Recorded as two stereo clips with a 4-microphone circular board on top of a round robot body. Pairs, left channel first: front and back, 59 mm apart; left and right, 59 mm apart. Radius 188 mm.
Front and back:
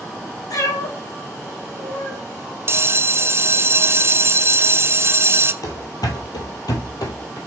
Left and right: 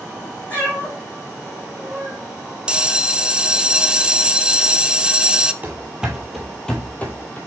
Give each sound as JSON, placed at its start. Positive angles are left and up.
{"t": 0.5, "sound": "a cat meowing", "azimuth_deg": 25, "distance_m": 3.5}
{"t": 2.7, "sound": "a bell", "azimuth_deg": -160, "distance_m": 0.8}
{"t": 5.6, "sound": "running footsteps", "azimuth_deg": -25, "distance_m": 0.9}